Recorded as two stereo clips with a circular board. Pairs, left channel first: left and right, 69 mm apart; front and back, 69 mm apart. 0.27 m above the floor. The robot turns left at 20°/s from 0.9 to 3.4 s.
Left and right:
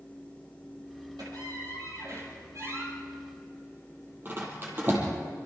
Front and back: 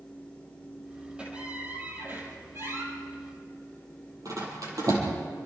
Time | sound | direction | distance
1.2 | a squeak | 105° right | 5.5 m